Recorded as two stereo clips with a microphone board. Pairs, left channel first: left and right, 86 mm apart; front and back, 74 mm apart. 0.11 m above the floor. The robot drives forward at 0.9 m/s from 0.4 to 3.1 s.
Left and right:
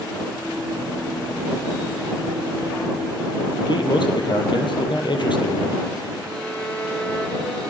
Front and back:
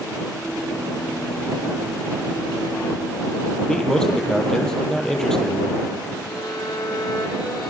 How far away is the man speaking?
About 2.5 m.